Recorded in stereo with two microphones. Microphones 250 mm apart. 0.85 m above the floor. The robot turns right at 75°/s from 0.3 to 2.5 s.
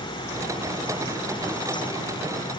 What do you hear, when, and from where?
Only background noise.